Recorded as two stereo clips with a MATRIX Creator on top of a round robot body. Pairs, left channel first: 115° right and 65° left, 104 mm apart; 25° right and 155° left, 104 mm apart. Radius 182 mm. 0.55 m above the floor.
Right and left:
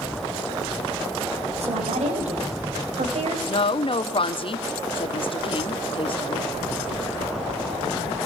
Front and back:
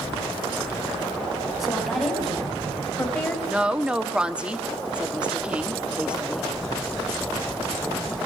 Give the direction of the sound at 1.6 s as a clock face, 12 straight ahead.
10 o'clock.